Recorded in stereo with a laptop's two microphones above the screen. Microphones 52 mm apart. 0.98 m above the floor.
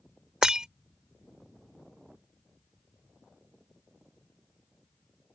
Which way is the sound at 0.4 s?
15° right (ahead or behind).